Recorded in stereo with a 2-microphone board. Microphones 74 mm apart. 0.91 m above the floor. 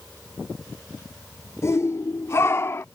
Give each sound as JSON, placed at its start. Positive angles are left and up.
{"t": 1.6, "sound": "a shout", "side_deg": 40}